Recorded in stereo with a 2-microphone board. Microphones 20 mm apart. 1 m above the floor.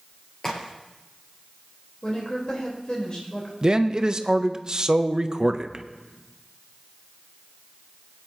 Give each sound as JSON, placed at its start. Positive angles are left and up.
{"t": 0.4, "sound": "a crack", "side_deg": 30, "distance_m": 3.0}
{"t": 2.0, "sound": "a woman speaking", "side_deg": 30, "distance_m": 4.0}
{"t": 3.6, "sound": "a man speaking", "side_deg": -35, "distance_m": 0.7}